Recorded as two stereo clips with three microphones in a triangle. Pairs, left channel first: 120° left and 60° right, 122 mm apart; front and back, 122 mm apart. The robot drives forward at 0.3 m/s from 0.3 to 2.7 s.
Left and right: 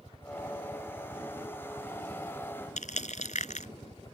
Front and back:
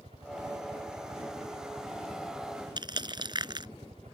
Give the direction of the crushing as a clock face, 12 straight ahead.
8 o'clock.